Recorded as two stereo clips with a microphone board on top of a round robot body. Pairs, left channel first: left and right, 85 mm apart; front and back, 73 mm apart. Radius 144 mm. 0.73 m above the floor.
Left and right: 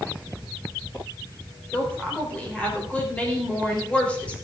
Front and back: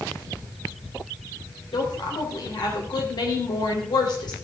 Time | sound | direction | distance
1.7 | a woman speaking | 15° left | 3.5 m